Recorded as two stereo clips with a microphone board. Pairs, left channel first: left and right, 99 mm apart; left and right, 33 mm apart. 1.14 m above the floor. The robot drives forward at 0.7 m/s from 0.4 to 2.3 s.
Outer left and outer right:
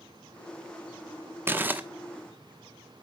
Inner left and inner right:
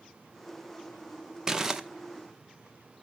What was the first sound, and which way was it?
Crumpling, 20° right (ahead or behind).